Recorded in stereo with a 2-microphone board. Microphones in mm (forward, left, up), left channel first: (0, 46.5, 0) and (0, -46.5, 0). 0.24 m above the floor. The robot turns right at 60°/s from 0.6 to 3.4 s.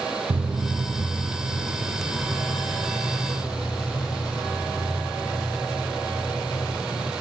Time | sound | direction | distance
0.3 | footsteps | 70° right (ahead or behind) | 0.6 m